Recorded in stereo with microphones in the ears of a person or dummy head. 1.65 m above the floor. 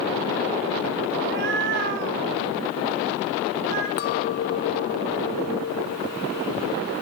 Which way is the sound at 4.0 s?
50° left (ahead or behind).